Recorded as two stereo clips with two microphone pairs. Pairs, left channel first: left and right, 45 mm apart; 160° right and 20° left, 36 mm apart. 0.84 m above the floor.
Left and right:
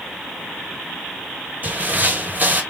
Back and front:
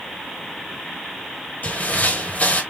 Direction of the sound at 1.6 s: 140° right.